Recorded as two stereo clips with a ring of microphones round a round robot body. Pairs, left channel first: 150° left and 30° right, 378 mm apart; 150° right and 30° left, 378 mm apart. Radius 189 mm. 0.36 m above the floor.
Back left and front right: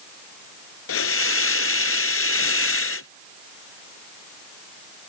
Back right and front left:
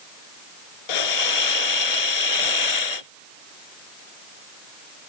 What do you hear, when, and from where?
0.9 s a hiss: 155° right